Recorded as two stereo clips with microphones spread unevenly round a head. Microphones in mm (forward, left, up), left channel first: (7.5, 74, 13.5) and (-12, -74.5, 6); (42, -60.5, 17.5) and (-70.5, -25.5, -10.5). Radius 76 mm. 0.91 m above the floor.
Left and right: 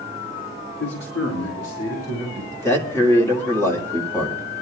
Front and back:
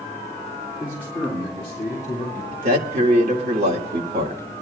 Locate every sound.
0.8 s a man speaking: 80° left, 2 m; by 2.4 s 75° left, 3.5 m
2.5 s a man speaking: 155° left, 1.8 m